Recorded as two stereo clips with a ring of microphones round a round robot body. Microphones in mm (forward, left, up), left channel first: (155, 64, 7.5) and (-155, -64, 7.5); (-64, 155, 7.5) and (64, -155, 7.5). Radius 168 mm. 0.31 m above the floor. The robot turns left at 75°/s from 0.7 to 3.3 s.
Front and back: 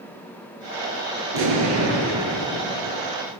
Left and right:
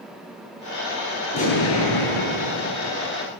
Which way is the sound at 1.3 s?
175° right.